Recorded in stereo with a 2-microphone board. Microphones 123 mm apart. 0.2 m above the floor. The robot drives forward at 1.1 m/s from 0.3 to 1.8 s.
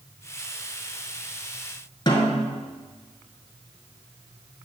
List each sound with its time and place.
2.1 s a snare drum: 35° left (ahead or behind), 1.4 m